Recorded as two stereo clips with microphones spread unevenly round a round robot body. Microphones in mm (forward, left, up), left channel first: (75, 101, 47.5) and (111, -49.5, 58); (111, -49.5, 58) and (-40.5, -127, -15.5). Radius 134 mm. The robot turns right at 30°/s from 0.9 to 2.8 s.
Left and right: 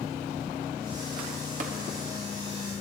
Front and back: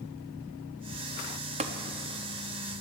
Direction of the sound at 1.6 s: 120° right.